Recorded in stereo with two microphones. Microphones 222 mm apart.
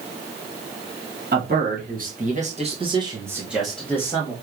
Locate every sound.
1.3 s a man speaking: 45° right (ahead or behind), 1.6 m; by 4.3 s 20° left (ahead or behind), 1.1 m